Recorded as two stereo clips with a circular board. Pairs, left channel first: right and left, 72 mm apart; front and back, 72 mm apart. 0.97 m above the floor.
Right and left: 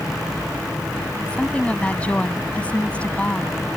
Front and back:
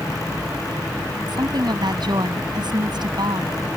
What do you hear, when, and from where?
1.3 s a woman speaking: 165° right